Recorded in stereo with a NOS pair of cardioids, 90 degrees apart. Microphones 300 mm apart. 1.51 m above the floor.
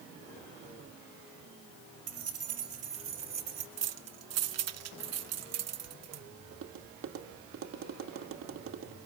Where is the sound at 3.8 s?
55° right, 1.2 m.